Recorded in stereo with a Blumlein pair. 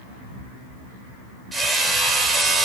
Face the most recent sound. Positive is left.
turn(degrees=-10)